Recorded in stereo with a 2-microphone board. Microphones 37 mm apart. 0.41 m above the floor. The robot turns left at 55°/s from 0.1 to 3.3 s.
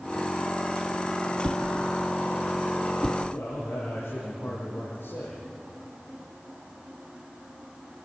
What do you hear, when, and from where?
1.4 s a whoosh: 75° right (ahead or behind), 1.7 m; by 3.2 s 10° left (ahead or behind), 1.7 m
3.3 s a man speaking: 80° left, 8 m